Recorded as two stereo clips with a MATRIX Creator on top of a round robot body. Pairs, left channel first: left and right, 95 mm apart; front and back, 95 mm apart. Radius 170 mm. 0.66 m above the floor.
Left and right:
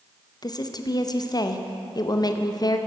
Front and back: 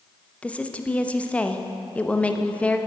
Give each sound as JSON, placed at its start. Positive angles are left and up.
{"t": 0.4, "sound": "a woman speaking", "azimuth_deg": 70, "distance_m": 1.1}